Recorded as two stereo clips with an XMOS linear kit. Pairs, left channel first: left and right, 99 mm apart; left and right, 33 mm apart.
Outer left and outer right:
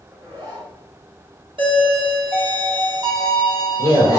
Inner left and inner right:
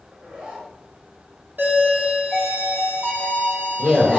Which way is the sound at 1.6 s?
60° right (ahead or behind).